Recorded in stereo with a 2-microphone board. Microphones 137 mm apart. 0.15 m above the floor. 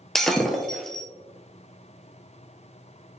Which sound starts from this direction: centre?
Breaking glass, at 0.1 s.